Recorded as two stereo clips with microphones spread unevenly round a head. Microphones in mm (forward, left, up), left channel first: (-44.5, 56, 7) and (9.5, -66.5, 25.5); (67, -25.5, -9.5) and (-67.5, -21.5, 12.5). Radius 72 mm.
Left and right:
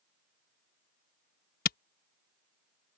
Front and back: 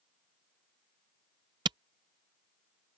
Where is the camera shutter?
130° left.